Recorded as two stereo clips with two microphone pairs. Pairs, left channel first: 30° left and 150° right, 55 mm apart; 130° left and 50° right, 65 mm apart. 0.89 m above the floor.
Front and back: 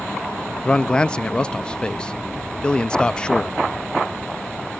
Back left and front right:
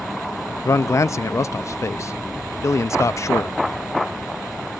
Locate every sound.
0.7 s a man speaking: 100° left, 0.6 m